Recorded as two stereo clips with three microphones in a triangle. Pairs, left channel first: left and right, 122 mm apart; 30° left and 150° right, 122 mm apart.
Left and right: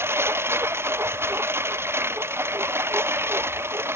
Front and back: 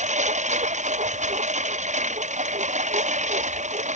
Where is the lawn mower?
160° right.